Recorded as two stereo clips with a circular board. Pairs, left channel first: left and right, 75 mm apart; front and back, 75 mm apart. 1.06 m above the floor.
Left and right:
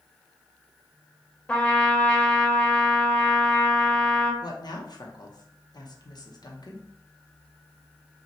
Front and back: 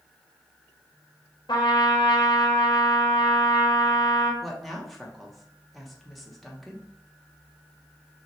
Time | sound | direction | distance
1.5 | a trumpet | 15° left | 0.9 m
4.4 | a woman speaking | 90° left | 0.8 m